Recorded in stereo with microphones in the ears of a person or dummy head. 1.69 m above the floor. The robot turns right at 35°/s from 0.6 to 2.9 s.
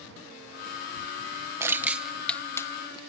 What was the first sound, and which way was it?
Crushing, 15° right (ahead or behind).